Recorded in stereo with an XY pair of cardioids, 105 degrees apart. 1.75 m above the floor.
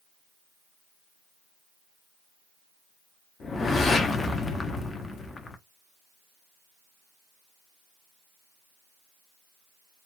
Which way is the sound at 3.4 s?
40° left.